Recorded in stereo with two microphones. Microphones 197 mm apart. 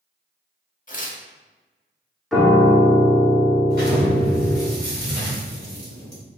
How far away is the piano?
About 1.1 m.